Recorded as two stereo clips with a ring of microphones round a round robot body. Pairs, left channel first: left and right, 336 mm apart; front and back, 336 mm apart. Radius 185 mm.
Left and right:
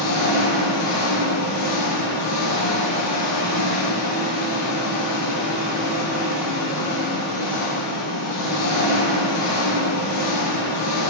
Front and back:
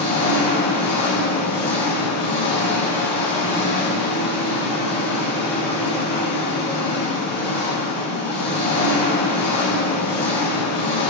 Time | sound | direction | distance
0.0 | an engine running | 75° left | 3 m